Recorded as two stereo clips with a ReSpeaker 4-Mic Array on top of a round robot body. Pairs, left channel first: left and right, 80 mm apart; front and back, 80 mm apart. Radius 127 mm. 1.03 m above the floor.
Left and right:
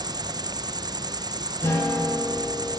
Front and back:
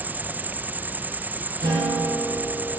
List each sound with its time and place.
0.0 s an insect: 115° right, 1.3 m
1.6 s a guitar: 150° left, 9 m